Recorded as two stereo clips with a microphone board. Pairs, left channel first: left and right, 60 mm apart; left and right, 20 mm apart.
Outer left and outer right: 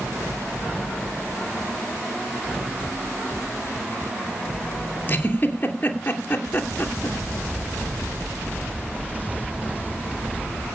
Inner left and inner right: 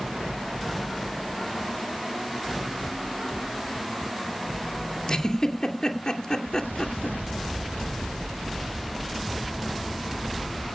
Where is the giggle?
30° left (ahead or behind), 2.5 m.